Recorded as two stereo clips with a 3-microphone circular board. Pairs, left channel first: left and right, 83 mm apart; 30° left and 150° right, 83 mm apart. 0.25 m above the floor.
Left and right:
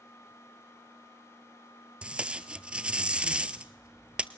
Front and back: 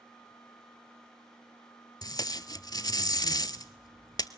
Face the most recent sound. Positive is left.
turn(degrees=-15)